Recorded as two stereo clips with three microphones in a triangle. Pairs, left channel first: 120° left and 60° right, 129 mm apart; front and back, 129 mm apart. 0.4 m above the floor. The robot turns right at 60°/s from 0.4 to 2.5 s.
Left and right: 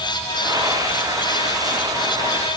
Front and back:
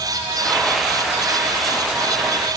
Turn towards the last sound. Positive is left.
No sound to turn to.